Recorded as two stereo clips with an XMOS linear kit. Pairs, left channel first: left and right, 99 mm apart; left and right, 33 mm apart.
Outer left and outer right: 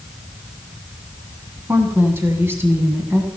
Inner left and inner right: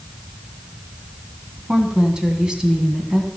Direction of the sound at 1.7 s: 20° right (ahead or behind).